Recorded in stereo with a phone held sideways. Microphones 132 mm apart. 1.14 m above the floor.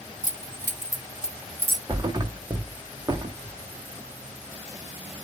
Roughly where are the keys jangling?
Left.